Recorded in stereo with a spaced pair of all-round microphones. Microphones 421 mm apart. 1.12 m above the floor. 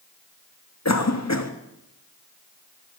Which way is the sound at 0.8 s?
40° left (ahead or behind).